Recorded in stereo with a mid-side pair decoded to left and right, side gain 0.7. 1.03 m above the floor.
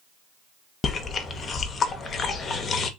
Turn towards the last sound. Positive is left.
turn(degrees=30)